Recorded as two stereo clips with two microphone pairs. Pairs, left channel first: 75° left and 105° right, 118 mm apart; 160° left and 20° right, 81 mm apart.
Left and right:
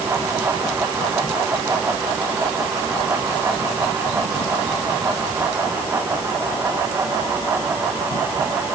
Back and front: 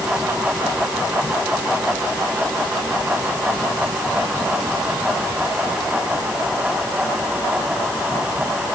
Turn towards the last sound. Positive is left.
No sound to turn to.